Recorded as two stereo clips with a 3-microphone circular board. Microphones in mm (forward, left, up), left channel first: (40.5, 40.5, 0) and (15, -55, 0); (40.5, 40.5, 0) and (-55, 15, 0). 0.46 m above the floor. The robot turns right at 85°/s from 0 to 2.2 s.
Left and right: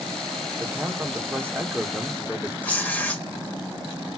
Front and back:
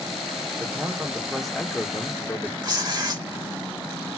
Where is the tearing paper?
145° left, 1.1 m.